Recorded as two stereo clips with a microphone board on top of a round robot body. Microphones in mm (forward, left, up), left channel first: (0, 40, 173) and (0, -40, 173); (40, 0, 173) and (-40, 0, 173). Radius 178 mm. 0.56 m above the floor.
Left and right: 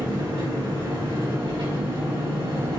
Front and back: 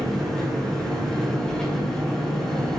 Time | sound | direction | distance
0.0 | an engine running | 80° right | 4.5 m